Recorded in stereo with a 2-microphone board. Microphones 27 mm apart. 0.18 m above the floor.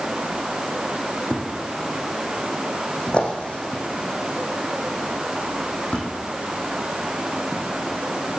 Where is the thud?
40° left (ahead or behind), 4.5 m.